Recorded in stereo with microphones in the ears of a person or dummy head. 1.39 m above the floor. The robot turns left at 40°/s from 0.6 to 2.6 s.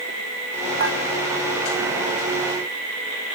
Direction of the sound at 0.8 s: 70° right (ahead or behind).